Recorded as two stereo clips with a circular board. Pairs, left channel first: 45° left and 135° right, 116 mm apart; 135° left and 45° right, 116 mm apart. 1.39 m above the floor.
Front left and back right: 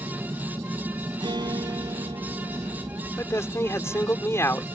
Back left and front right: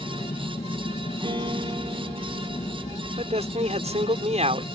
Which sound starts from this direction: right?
A guitar, at 1.2 s.